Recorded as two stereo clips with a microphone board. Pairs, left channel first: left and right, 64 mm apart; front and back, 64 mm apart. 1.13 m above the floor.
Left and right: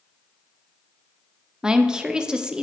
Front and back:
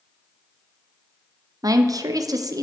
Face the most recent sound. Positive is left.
turn(degrees=-165)